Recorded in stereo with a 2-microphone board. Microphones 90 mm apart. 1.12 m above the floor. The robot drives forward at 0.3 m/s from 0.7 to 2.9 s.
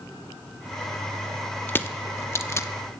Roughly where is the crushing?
Left.